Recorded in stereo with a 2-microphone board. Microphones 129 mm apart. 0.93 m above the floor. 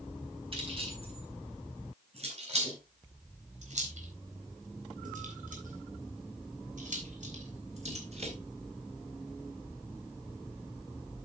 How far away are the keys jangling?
About 5 m.